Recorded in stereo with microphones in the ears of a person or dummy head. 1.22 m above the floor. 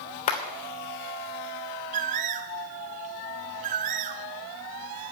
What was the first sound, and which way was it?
A clap, 40° left (ahead or behind).